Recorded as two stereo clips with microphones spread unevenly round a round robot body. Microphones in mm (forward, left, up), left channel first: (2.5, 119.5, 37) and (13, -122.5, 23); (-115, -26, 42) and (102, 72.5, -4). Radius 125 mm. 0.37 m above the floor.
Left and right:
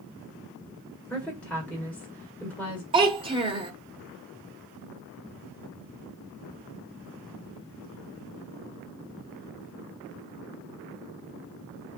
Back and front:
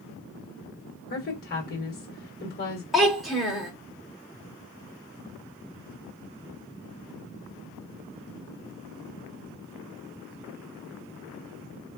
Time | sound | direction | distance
1.1 | a woman speaking | 175° left | 1.6 m
2.9 | a child speaking | 45° right | 1.1 m